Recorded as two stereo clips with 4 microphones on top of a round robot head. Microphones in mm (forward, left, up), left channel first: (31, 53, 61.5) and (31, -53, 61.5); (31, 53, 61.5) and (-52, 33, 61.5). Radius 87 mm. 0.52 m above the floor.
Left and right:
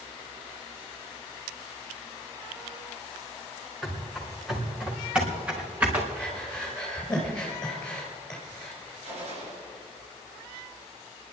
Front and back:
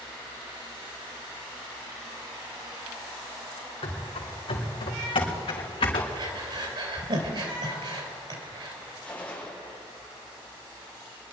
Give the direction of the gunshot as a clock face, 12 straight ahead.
2 o'clock.